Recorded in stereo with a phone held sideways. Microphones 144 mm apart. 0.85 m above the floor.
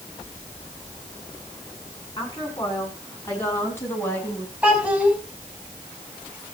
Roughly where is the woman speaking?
Left.